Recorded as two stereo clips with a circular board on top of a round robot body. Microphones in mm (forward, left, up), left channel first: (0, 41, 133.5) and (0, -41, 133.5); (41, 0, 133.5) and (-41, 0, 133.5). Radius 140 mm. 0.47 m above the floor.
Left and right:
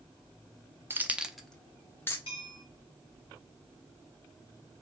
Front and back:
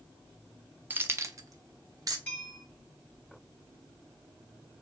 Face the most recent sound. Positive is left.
turn(degrees=70)